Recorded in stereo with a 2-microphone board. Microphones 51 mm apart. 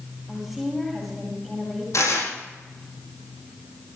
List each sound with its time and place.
0.3 s a woman speaking: 5° left (ahead or behind), 9 m
1.9 s tearing paper: 75° left (ahead or behind), 9 m